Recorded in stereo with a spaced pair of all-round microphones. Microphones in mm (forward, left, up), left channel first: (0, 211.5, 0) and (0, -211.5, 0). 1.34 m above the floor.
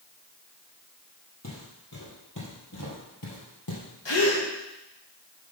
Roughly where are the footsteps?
Left.